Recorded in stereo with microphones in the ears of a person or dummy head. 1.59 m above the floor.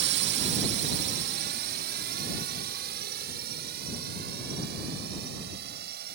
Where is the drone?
55° right (ahead or behind).